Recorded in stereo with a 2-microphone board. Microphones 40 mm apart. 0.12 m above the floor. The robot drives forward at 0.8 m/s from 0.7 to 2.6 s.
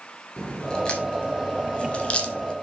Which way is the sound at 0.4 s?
20° left (ahead or behind).